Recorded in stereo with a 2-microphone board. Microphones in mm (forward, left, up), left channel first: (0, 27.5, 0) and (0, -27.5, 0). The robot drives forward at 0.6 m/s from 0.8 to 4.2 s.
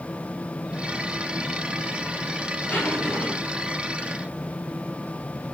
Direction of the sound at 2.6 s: 20° left (ahead or behind).